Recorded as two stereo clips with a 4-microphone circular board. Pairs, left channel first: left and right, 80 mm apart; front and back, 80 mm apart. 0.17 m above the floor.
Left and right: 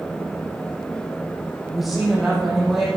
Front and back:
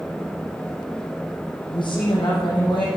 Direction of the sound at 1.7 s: Straight ahead.